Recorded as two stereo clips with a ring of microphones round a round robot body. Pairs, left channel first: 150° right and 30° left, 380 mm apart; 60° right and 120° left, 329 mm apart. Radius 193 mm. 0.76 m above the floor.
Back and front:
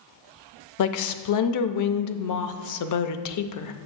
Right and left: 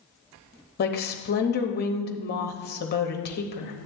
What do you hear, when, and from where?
0.8 s a woman speaking: 115° right, 0.6 m